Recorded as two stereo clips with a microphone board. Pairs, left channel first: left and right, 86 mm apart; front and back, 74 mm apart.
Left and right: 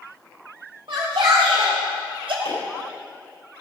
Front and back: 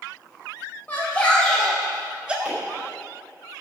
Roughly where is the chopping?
Left.